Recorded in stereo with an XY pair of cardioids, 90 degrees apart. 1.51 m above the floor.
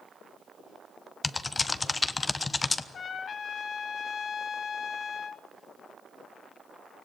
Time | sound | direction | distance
1.2 | typing on a keyboard | 30° left | 1.0 m
2.9 | a trumpet | 55° left | 1.3 m